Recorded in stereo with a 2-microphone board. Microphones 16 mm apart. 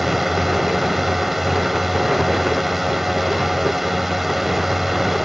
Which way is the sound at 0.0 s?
15° right (ahead or behind).